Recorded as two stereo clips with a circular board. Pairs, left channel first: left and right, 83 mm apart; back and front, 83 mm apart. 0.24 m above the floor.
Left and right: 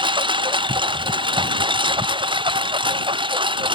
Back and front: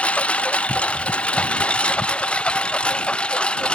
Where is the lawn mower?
105° right; by 3.8 s 100° right.